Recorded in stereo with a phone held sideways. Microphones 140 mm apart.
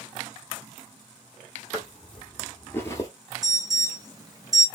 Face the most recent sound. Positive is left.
turn(degrees=-25)  # may be behind; listen again after turning